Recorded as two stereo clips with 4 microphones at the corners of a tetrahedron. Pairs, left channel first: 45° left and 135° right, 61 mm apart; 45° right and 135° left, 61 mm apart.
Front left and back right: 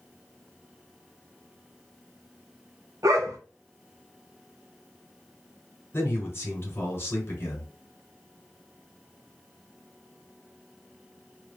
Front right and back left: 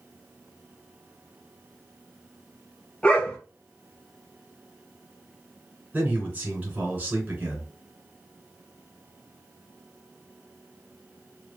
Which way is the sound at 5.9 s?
80° left.